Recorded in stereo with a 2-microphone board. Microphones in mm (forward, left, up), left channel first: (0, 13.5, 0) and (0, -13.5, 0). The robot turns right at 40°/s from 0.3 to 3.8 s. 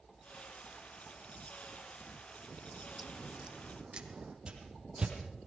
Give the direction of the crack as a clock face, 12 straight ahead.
7 o'clock.